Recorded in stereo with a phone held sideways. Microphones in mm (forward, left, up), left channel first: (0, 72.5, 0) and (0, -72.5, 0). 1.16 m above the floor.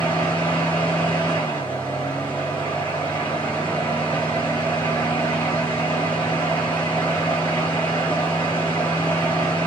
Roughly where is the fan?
Centre.